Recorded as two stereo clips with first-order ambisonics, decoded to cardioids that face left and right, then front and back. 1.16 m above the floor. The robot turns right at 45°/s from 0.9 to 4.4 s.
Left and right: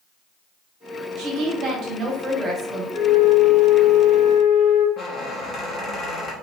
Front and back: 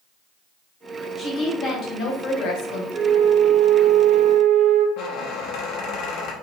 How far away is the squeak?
About 0.9 m.